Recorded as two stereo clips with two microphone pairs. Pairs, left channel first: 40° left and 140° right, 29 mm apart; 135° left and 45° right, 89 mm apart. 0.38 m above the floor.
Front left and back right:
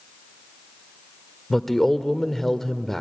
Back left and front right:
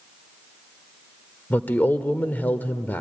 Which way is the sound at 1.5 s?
110° left.